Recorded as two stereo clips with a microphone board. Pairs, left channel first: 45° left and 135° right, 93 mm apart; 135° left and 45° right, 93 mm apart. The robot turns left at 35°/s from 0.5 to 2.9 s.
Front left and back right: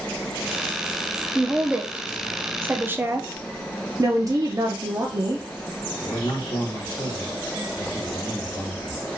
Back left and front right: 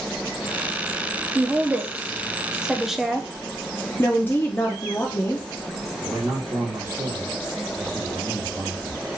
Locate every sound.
1.4 s a woman speaking: 70° right, 0.7 m; by 3.3 s 125° right, 0.7 m
4.0 s a woman speaking: 165° right, 0.7 m
6.0 s a man speaking: 10° left, 1.4 m